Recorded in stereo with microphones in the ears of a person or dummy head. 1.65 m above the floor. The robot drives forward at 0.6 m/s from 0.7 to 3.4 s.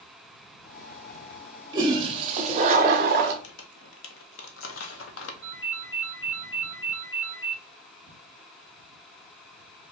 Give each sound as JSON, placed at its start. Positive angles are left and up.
{"t": 1.7, "sound": "a toilet flushing", "side_deg": -25, "distance_m": 1.0}
{"t": 3.4, "sound": "crumpling", "side_deg": 80, "distance_m": 0.8}
{"t": 5.4, "sound": "a ringtone", "side_deg": 25, "distance_m": 0.7}